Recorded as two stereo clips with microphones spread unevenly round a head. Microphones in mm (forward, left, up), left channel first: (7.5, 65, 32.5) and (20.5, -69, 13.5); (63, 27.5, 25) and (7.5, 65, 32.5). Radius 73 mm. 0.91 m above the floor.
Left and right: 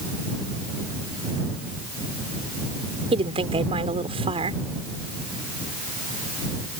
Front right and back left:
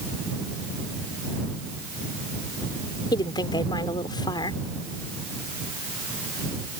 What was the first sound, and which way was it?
A woman speaking, 35° right.